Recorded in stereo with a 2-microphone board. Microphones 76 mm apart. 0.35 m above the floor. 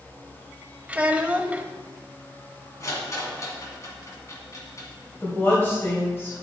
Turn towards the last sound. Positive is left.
turn(degrees=30)  # may be behind; listen again after turning